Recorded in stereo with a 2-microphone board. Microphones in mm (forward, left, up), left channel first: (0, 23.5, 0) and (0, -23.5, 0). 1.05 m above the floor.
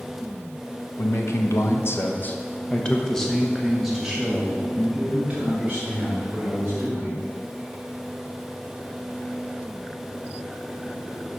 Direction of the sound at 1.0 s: 75° left (ahead or behind).